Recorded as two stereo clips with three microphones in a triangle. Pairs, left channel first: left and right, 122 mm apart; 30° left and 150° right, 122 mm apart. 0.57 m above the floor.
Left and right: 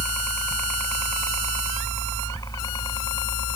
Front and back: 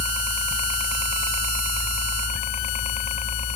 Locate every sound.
0.0 s a helicopter: 10° left; by 3.6 s 40° left